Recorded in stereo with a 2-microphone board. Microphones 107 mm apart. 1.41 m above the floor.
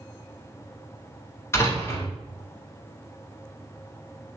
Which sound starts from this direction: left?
A door slam, at 1.5 s.